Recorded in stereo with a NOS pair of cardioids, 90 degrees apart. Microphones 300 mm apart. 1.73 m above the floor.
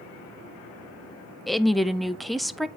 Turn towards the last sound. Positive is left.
turn(degrees=0)